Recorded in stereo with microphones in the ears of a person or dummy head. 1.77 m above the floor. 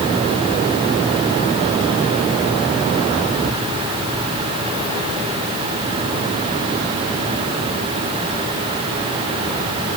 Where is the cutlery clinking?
I don't hear cutlery clinking.